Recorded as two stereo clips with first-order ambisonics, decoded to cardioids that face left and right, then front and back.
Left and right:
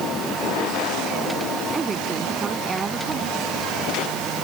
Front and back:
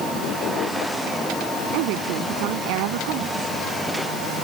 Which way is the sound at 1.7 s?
160° right.